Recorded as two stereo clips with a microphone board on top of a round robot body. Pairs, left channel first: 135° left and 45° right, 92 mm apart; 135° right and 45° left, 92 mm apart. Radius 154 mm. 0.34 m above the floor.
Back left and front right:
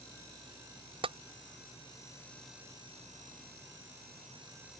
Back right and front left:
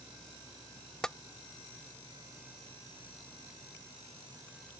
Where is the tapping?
50° right.